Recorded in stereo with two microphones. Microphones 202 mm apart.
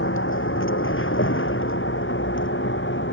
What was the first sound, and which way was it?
A vehicle, 85° left.